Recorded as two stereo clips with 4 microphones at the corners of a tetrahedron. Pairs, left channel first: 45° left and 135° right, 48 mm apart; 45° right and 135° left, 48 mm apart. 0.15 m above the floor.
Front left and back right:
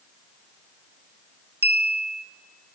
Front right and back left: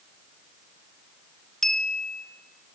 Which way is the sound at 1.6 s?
125° right.